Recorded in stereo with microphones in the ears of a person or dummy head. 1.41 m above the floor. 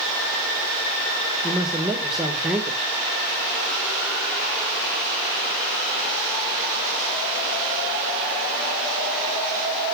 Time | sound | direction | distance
1.4 | a man speaking | 5° right (ahead or behind) | 1.8 m